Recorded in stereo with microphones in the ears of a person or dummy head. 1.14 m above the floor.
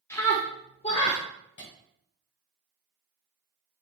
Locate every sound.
0.1 s a scream: 15° left (ahead or behind), 1.5 m; by 1.2 s 40° left (ahead or behind), 1.2 m
1.6 s a clap: 55° left (ahead or behind), 4 m